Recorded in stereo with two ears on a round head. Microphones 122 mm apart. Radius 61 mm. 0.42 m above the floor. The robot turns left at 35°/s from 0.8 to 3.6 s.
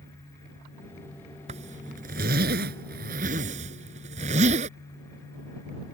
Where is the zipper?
50° right (ahead or behind); by 4.7 s 55° right (ahead or behind).